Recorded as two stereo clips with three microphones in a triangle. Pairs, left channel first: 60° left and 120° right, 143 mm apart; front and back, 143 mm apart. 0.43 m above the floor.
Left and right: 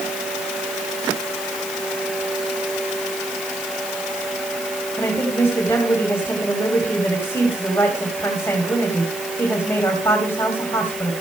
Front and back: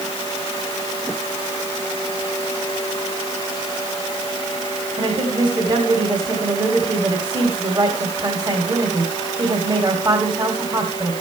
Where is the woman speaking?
130° left, 2.5 m.